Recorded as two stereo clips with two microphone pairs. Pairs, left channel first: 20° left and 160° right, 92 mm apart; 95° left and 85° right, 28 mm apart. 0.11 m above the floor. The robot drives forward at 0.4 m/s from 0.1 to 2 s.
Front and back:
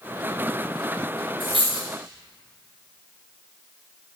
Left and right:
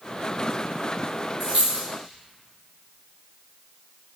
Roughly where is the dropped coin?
Behind right.